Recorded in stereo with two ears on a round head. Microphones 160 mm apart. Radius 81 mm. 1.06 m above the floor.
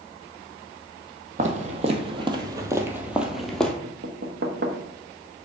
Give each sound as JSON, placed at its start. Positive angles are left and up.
{"t": 1.4, "sound": "footsteps", "side_deg": -45, "distance_m": 1.5}
{"t": 3.8, "sound": "knocking", "side_deg": -60, "distance_m": 1.2}